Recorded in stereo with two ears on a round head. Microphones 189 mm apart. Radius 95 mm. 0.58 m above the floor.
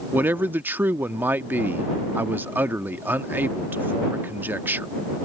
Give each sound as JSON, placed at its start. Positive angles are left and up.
{"t": 0.1, "sound": "a man speaking", "side_deg": -10}